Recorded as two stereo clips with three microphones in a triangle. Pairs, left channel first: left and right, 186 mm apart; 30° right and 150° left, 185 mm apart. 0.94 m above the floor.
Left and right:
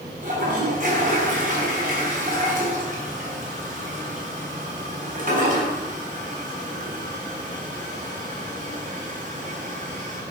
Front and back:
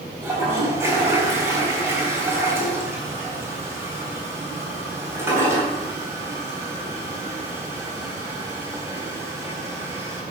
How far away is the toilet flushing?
About 3.5 m.